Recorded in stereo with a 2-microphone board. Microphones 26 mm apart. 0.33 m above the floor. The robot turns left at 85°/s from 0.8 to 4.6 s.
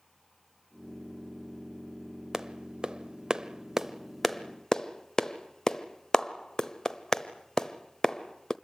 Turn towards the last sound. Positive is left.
turn(degrees=25)  # may be behind; listen again after turning